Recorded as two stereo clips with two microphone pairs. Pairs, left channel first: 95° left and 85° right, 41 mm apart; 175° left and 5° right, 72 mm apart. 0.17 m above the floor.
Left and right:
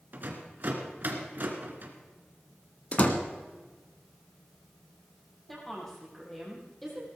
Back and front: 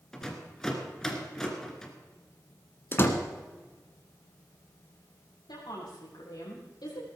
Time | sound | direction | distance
0.1 | a rattle | 105° right | 2 m
2.9 | a door slam | 135° left | 1.6 m
5.5 | a woman speaking | straight behind | 6 m